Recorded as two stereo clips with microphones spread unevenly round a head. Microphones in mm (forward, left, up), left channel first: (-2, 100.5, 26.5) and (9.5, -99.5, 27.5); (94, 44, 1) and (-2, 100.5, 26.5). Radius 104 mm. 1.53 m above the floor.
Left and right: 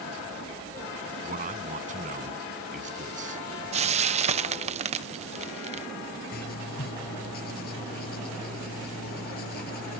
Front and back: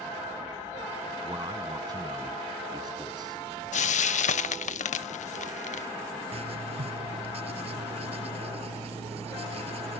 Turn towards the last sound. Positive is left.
turn(degrees=135)